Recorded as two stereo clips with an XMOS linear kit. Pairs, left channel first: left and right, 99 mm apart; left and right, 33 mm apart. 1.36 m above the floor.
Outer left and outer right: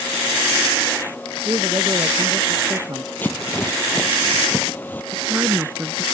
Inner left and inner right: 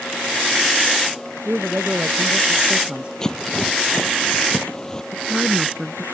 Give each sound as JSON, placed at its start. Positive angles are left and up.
{"t": 1.4, "sound": "a man speaking", "side_deg": -40}
{"t": 3.2, "sound": "a rattle", "side_deg": 20}
{"t": 5.1, "sound": "a woman speaking", "side_deg": -20}